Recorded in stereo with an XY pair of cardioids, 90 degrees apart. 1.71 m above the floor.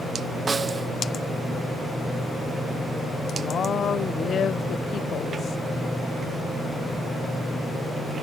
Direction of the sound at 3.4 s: 60° left.